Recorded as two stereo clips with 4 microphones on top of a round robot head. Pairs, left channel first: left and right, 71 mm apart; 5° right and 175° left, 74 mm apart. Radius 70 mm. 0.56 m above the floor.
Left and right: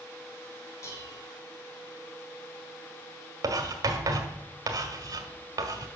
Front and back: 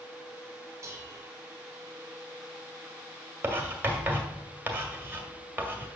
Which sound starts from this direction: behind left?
Dishes clattering, at 0.8 s.